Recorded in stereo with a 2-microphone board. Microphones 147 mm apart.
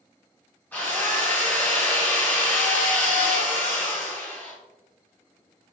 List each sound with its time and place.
0.7 s a drill: 15° left (ahead or behind), 1.9 m